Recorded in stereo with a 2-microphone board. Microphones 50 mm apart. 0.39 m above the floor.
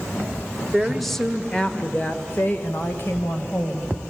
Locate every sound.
0.7 s a woman speaking: 5° right (ahead or behind), 1.3 m; by 3.9 s 55° left (ahead or behind), 2.5 m